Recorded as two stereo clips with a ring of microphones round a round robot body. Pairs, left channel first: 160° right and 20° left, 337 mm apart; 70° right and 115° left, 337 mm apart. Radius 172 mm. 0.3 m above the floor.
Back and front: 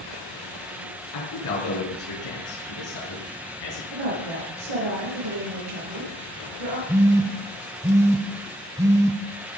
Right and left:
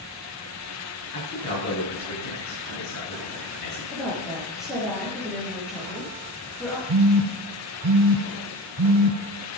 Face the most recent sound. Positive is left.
turn(degrees=100)